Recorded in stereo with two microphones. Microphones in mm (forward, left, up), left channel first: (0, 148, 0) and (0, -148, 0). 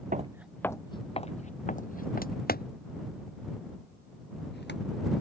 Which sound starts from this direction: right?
Footsteps, at 0.1 s.